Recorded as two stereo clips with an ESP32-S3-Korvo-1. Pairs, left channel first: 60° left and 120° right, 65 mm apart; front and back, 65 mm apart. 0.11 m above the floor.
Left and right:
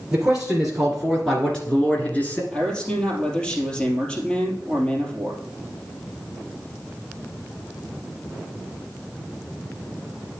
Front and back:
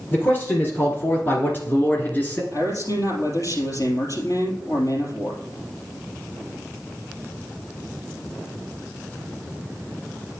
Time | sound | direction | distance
0.1 | a man speaking | 45° right | 2.0 m
2.5 | a man speaking | 15° right | 3 m